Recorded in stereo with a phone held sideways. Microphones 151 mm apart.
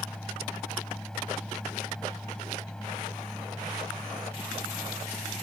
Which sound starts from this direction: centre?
A fan, at 0.0 s.